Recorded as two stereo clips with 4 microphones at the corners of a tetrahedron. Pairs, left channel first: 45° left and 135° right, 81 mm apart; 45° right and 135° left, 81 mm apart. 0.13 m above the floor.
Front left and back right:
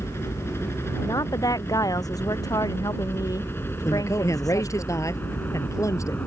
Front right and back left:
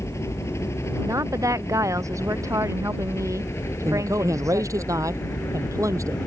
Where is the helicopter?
5° right.